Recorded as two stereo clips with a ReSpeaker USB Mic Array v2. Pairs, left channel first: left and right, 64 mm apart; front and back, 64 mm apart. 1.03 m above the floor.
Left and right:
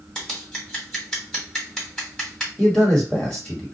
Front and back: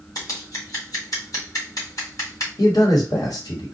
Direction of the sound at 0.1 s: 10° left.